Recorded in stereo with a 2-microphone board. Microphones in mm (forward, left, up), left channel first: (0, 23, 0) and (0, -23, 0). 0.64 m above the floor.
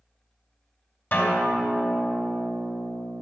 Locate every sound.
1.1 s a guitar: 45° left (ahead or behind), 3 m